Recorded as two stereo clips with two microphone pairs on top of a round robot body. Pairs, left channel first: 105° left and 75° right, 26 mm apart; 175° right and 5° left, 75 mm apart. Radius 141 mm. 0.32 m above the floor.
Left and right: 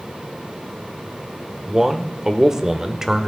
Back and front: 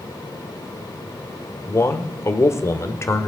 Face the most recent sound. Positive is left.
turn(degrees=-140)